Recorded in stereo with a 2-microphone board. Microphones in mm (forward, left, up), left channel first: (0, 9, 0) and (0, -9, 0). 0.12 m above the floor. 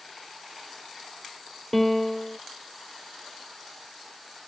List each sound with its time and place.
1.7 s a piano: 10° left (ahead or behind)